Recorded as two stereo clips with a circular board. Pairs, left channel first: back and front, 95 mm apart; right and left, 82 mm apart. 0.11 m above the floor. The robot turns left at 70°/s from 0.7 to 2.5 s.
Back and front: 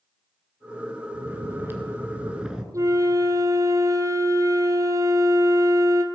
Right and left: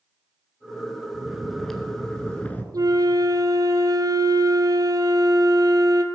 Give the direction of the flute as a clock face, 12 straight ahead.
10 o'clock.